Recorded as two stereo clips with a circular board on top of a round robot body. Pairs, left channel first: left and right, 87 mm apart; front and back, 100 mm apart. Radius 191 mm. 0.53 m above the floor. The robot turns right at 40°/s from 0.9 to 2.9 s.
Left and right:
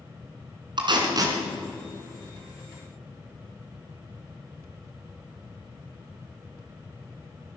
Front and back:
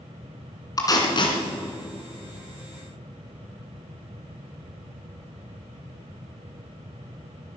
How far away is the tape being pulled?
About 2 m.